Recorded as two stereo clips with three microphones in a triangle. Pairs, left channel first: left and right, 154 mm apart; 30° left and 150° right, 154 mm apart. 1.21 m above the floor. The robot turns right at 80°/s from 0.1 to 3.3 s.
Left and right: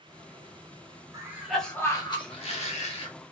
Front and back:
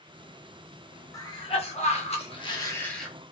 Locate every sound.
1.1 s a cough: 35° right, 0.8 m; by 3.1 s 125° left, 0.8 m